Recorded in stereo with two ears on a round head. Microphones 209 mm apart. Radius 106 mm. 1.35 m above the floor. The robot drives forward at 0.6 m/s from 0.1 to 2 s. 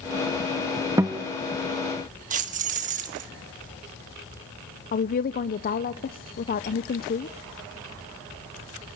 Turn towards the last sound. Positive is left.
turn(degrees=40)  # may be behind; listen again after turning